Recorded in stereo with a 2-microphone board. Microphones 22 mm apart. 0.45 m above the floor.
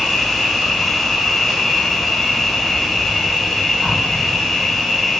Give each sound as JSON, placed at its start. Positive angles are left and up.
{"t": 0.0, "sound": "an insect", "side_deg": 10, "distance_m": 1.1}